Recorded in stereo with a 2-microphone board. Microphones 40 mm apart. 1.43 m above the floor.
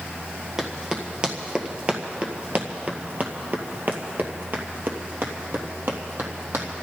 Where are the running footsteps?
10° right (ahead or behind), 2.5 m; by 6.8 s 65° right (ahead or behind), 3 m.